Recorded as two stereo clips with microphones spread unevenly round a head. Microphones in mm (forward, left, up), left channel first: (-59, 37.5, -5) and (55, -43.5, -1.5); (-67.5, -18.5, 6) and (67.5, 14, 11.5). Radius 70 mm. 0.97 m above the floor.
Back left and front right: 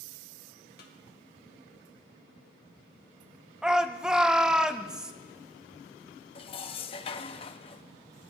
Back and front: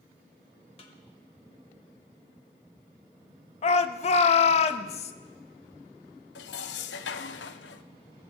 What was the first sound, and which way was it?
A snare drum, 145° left.